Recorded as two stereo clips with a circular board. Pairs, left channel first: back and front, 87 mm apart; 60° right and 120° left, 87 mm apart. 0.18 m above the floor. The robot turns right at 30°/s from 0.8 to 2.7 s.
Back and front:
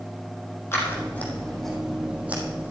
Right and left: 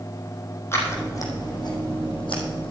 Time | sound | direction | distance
0.7 | scissors | 120° right | 3.5 m